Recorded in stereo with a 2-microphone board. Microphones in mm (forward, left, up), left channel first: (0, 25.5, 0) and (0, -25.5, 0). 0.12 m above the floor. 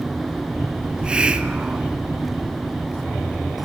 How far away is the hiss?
About 1.0 m.